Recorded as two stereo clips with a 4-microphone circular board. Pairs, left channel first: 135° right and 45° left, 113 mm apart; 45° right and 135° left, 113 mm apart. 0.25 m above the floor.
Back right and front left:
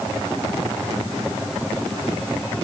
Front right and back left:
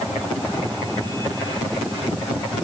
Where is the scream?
I don't hear a scream.